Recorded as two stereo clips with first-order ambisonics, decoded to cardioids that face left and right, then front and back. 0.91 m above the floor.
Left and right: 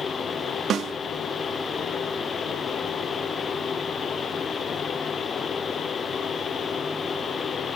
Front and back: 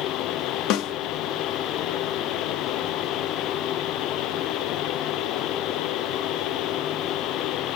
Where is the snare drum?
30° right, 0.6 m.